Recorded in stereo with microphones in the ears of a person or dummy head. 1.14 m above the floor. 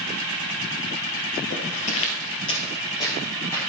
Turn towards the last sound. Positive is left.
turn(degrees=20)  # may be behind; listen again after turning